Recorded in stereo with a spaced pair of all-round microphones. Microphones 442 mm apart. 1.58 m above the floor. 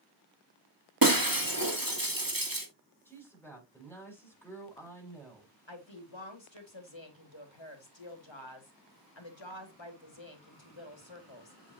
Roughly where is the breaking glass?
Right.